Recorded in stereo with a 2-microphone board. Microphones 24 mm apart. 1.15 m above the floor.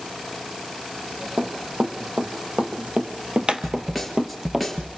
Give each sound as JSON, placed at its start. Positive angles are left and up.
{"t": 1.4, "sound": "running footsteps", "side_deg": -60, "distance_m": 2.5}
{"t": 3.6, "sound": "a snare drum", "side_deg": 0, "distance_m": 3.5}